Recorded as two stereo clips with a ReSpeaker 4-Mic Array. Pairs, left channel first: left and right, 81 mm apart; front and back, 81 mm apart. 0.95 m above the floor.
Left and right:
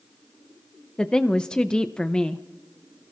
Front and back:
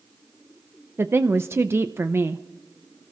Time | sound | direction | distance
1.0 | a woman speaking | 160° left | 0.5 m